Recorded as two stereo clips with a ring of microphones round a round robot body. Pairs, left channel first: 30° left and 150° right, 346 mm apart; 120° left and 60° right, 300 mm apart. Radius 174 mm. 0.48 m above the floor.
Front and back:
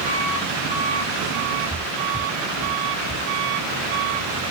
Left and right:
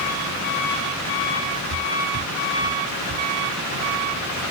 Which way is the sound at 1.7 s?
65° right.